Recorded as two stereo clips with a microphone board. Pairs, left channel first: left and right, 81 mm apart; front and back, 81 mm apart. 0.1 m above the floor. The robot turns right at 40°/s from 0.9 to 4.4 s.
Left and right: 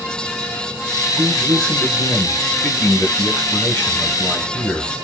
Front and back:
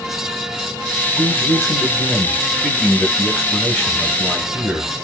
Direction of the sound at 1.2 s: 5° right.